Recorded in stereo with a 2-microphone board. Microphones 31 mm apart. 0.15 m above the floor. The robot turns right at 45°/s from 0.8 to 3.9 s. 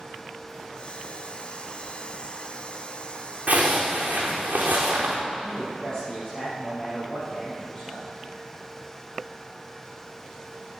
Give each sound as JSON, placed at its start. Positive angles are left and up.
{"t": 3.5, "sound": "a zipper", "side_deg": -50, "distance_m": 3.5}
{"t": 5.4, "sound": "a man speaking", "side_deg": 30, "distance_m": 4.0}